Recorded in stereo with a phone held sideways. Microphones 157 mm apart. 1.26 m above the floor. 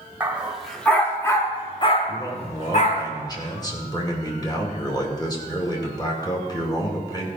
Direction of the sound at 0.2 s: 10° right (ahead or behind).